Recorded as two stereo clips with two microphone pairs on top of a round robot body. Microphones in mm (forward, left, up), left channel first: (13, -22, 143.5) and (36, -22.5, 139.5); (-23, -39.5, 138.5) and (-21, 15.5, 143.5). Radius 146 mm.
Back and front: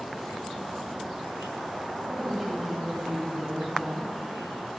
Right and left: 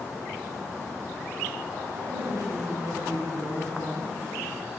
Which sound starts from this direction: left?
A woman speaking, at 1.9 s.